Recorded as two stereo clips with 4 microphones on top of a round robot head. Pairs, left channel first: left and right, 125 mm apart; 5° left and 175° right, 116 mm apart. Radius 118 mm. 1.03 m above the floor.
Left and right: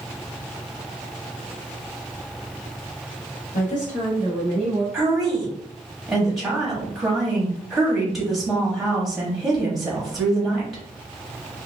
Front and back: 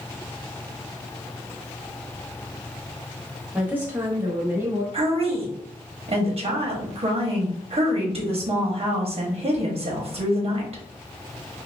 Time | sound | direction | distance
3.5 | a woman speaking | 105° left | 1.2 m
4.9 | a woman speaking | straight behind | 1.0 m